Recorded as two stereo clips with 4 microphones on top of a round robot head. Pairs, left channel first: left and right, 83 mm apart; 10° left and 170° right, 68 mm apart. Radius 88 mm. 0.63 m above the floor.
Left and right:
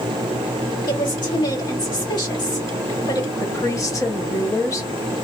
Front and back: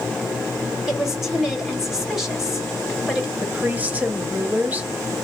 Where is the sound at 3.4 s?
130° left, 0.9 m.